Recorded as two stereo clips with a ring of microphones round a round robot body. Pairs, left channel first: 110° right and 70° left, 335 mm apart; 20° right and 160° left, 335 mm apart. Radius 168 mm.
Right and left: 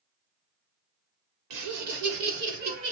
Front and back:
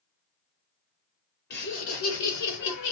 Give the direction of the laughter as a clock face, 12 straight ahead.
11 o'clock.